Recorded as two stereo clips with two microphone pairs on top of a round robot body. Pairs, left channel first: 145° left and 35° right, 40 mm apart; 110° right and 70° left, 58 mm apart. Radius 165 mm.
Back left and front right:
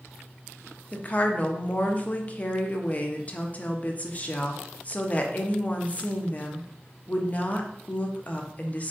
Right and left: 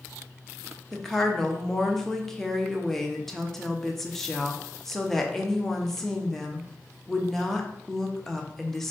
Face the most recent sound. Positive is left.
turn(degrees=160)